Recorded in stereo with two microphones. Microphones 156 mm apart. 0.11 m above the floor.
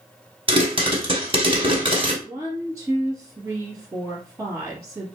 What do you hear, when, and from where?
0.5 s a pop: 35° right (ahead or behind), 1.3 m
2.2 s a woman speaking: 20° right (ahead or behind), 1.9 m